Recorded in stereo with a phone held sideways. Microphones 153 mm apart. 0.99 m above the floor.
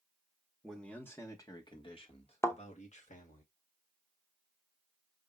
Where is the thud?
20° left (ahead or behind), 0.8 m.